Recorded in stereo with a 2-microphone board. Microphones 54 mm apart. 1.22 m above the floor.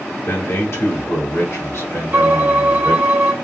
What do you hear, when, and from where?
0.3 s a man speaking: 60° left (ahead or behind), 1.0 m; by 3.1 s 65° left (ahead or behind), 2.5 m
2.1 s a violin: 45° right (ahead or behind), 0.9 m